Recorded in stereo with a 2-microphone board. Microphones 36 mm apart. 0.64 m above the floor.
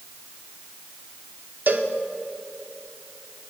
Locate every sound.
1.7 s a cowbell: 60° right (ahead or behind), 0.7 m